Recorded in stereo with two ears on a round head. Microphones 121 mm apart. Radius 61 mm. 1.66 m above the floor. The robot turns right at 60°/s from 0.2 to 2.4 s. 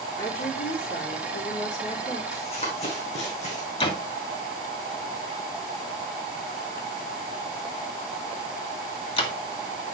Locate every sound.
0.2 s a woman speaking: 30° left, 3.5 m; by 2.2 s 150° left, 3.5 m
2.3 s running footsteps: 50° left (ahead or behind), 4.5 m; by 3.7 s 60° left (ahead or behind), 4.5 m
3.8 s a door slam: 40° left (ahead or behind), 1.9 m